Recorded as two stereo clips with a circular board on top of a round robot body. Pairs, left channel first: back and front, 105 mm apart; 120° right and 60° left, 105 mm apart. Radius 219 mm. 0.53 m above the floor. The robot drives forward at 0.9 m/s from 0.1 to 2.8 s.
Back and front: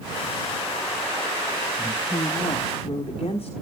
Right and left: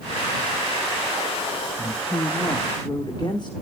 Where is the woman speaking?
145° right, 0.9 m; by 3.5 s 165° right, 1.6 m.